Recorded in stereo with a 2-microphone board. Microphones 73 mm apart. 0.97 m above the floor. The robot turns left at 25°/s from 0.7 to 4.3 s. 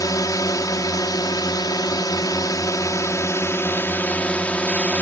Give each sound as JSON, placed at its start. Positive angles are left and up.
{"t": 0.0, "sound": "a drone", "azimuth_deg": 110}